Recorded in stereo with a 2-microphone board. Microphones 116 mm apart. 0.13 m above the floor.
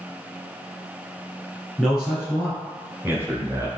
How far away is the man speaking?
About 2.0 m.